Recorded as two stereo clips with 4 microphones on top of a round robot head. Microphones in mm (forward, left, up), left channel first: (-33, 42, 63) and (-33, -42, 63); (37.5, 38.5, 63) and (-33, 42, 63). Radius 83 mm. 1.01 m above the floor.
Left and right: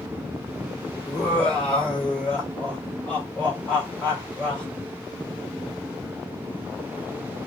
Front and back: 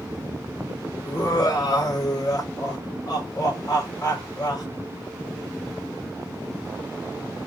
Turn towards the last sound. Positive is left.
turn(degrees=10)